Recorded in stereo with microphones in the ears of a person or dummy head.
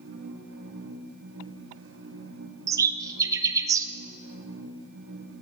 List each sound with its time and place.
0.0 s a machine running: 75° right (ahead or behind), 1.0 m
2.7 s a bird: 20° right (ahead or behind), 0.7 m